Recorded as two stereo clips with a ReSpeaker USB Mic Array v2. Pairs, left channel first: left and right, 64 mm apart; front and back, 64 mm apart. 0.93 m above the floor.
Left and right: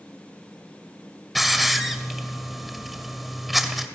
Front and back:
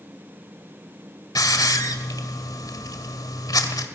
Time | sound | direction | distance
1.4 | a hiss | straight ahead | 1.9 m